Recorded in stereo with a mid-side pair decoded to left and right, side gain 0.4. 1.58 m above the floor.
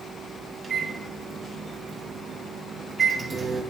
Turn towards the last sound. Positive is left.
turn(degrees=-40)